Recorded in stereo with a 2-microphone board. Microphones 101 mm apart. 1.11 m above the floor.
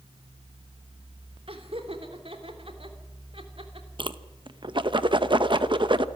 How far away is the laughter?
About 3.5 m.